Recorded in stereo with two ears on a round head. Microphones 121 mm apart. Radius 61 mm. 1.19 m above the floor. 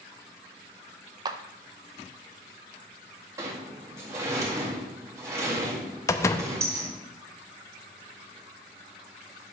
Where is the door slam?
20° left (ahead or behind), 0.6 m.